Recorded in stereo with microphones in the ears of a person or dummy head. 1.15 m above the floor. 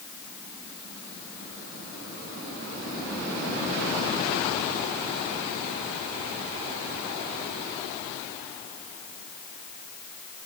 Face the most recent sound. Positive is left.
No sound to turn to.